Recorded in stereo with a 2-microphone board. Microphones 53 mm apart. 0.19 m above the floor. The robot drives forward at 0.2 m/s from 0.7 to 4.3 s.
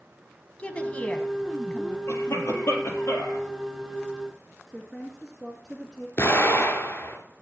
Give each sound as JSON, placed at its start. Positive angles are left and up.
{"t": 0.6, "sound": "a woman speaking", "side_deg": 25, "distance_m": 1.4}
{"t": 2.1, "sound": "a cough", "side_deg": 50, "distance_m": 4.0}
{"t": 4.7, "sound": "a woman speaking", "side_deg": 5, "distance_m": 1.8}
{"t": 6.2, "sound": "an explosion", "side_deg": 40, "distance_m": 2.5}